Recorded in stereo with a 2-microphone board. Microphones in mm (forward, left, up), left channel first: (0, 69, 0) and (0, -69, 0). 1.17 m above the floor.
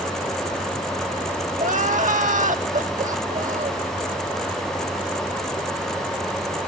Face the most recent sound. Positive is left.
turn(degrees=-65)  # may be behind; listen again after turning